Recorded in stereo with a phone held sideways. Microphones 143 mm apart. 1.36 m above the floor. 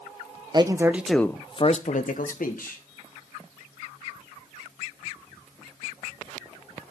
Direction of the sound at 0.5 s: 30° right (ahead or behind).